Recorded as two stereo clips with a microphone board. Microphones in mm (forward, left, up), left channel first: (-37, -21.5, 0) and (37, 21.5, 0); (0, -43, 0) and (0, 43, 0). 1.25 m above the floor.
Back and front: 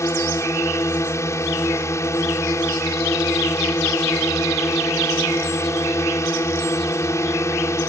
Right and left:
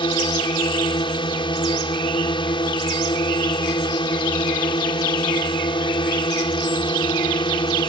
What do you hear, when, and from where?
0.0 s a drone: 95° right